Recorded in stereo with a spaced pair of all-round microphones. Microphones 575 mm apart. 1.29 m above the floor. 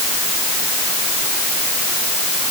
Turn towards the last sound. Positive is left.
No sound to turn to.